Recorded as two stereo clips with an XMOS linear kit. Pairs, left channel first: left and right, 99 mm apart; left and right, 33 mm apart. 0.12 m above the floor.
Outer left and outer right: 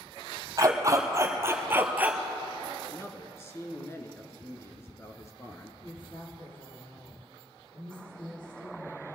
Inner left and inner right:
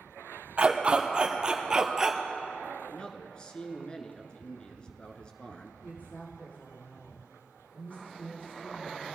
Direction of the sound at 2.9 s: 30° left (ahead or behind).